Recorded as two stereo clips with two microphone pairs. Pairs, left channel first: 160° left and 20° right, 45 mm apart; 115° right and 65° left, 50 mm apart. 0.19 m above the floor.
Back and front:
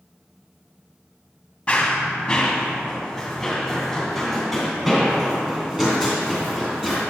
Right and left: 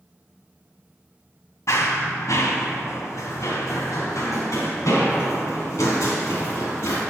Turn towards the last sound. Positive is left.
turn(degrees=-100)